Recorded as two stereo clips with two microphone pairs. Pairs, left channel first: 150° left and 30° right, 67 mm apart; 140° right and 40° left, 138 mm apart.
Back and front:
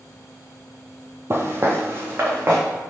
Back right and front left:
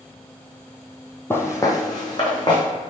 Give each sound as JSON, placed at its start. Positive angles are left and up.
{"t": 1.3, "sound": "footsteps", "azimuth_deg": -70, "distance_m": 0.6}